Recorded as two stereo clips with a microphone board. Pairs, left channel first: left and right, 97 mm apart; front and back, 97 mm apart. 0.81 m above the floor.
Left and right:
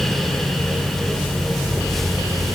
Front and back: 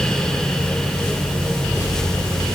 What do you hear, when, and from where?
Only background noise.